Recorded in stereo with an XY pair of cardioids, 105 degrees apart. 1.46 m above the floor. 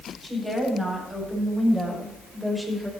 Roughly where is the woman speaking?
Ahead.